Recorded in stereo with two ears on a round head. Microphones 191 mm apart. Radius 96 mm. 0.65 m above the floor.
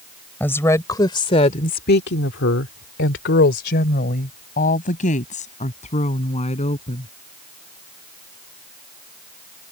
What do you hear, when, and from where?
0.4 s a woman speaking: 10° left (ahead or behind); by 7.1 s 30° left (ahead or behind)